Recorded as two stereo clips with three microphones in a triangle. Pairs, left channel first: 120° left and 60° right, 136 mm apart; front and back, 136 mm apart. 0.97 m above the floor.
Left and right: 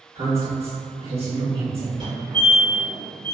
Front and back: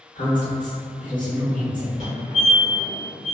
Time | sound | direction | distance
0.1 | a woman speaking | 15° right | 1.2 m
2.0 | a fire alarm | 20° right | 1.9 m